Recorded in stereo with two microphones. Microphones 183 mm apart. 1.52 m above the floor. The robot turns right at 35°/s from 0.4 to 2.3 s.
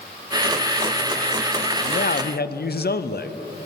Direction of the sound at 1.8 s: 50° left (ahead or behind).